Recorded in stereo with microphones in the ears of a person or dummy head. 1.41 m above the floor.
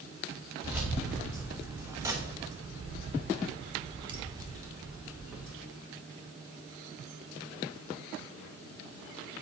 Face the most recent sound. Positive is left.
turn(degrees=-15)  # may be behind; listen again after turning